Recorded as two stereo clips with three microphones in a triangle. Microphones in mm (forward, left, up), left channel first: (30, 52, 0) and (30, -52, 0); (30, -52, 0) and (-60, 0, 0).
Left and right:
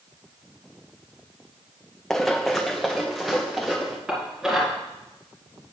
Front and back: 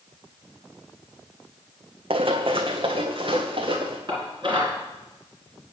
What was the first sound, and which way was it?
Running footsteps, 175° left.